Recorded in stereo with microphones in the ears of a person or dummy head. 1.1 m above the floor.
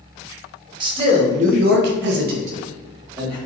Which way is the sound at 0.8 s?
30° right (ahead or behind).